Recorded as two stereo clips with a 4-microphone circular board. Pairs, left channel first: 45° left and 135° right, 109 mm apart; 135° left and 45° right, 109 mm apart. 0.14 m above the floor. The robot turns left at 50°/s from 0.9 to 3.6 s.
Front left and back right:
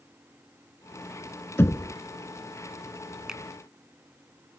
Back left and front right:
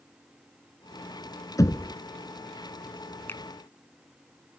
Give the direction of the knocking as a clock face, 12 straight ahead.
9 o'clock.